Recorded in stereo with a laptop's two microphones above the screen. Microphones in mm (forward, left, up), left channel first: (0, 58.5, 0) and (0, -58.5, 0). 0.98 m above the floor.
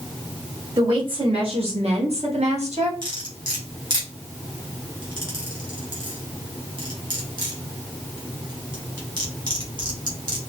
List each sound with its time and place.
0.8 s a woman speaking: 45° right (ahead or behind), 2 m; by 2.9 s 70° right (ahead or behind), 2.5 m
3.0 s cutlery clinking: 40° right (ahead or behind), 2 m